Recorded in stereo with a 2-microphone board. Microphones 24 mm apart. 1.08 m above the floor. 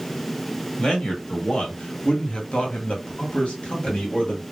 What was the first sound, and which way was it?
A man speaking, 35° left (ahead or behind).